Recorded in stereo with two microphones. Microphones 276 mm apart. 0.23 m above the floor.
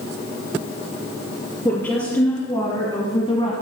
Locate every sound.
1.6 s a woman speaking: 10° left (ahead or behind), 3.5 m; by 3.5 s 20° left (ahead or behind), 1.9 m